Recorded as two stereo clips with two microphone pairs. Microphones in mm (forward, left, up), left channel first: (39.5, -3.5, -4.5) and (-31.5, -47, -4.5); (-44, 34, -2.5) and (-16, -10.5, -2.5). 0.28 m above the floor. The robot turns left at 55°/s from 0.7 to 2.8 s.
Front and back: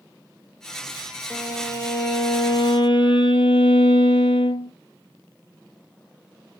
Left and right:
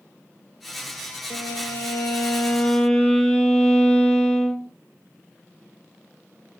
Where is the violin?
120° left, 1.5 m; by 4.7 s 40° left, 1.5 m.